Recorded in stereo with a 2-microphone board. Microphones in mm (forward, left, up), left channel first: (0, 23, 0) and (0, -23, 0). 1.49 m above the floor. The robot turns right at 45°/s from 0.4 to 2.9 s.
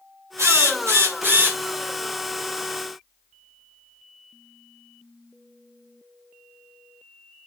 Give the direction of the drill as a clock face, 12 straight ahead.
3 o'clock.